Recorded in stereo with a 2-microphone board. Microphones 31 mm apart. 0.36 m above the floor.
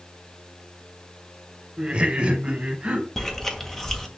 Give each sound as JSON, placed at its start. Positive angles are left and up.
{"t": 1.8, "sound": "laughter", "side_deg": -35, "distance_m": 1.8}
{"t": 3.2, "sound": "chewing", "side_deg": 10, "distance_m": 2.0}